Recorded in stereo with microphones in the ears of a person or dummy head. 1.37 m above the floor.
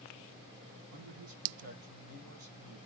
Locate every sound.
0.9 s a man speaking: 60° right (ahead or behind), 1.1 m